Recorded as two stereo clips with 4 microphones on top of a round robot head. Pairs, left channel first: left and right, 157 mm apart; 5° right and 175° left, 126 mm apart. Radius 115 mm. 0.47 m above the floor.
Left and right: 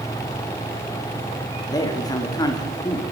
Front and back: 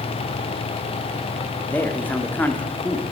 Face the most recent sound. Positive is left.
turn(degrees=55)